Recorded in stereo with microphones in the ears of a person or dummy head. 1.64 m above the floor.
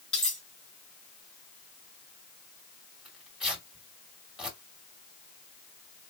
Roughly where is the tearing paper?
Centre.